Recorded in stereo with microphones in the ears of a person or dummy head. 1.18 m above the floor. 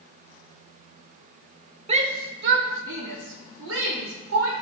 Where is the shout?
30° right (ahead or behind), 0.9 m; by 4.5 s 80° right, 3 m.